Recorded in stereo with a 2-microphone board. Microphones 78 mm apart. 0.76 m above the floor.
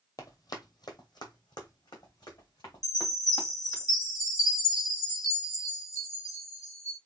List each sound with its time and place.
0.2 s running footsteps: 50° left (ahead or behind), 1.1 m; by 3.8 s 60° left (ahead or behind), 4 m
2.8 s a chime: 55° left (ahead or behind), 3.5 m